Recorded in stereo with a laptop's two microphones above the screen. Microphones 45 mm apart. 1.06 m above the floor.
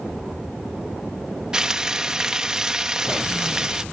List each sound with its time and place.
1.5 s frying: 15° right (ahead or behind)